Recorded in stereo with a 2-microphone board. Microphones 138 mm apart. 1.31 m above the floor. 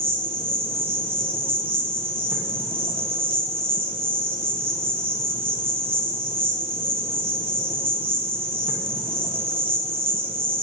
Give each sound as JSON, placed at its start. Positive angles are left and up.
{"t": 0.0, "sound": "an insect", "side_deg": -40, "distance_m": 1.8}